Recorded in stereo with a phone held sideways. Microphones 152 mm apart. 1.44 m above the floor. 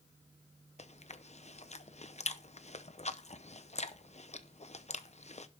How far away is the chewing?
About 0.7 m.